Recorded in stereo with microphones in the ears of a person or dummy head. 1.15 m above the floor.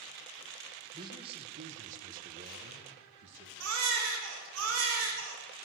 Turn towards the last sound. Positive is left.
turn(degrees=-85)